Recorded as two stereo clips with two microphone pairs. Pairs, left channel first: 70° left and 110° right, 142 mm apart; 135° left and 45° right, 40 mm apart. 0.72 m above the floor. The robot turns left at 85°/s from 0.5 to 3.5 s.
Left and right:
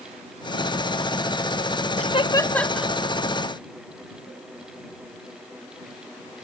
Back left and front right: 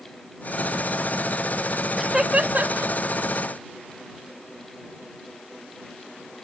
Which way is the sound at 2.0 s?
45° left.